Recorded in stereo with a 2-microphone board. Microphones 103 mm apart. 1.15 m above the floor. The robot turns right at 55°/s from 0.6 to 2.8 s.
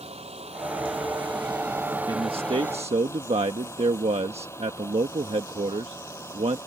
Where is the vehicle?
95° right; by 6.7 s 25° left.